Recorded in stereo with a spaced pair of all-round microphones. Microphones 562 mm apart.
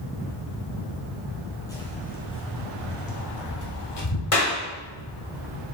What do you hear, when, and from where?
1.7 s footsteps: 5° left (ahead or behind), 2.5 m; by 4.2 s 45° left (ahead or behind), 3 m
4.3 s a clap: 65° left (ahead or behind), 1.6 m